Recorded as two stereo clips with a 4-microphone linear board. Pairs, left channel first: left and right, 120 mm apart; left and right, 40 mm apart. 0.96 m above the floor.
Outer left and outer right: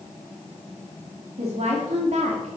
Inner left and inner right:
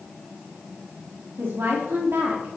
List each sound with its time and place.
1.4 s a woman speaking: 65° right (ahead or behind), 2.5 m